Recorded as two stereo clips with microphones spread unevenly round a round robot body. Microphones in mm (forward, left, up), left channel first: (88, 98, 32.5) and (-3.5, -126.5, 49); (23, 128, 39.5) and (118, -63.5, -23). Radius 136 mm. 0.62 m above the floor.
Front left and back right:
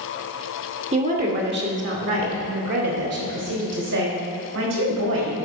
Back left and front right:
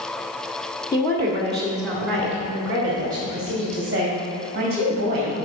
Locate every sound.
0.9 s a woman speaking: 155° right, 1.2 m; by 5.3 s 130° right, 4.5 m